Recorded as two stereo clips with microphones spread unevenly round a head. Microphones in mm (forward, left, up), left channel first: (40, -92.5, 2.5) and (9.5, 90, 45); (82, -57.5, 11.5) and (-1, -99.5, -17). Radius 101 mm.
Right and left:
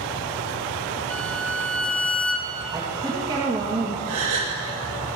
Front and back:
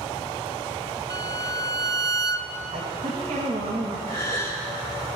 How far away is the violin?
About 0.9 m.